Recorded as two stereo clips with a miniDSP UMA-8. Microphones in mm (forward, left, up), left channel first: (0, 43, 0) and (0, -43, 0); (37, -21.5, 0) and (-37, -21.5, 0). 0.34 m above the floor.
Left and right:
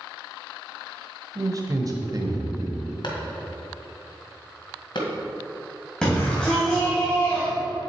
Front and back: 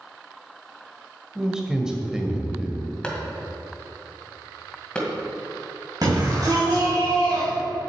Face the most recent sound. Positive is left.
turn(degrees=170)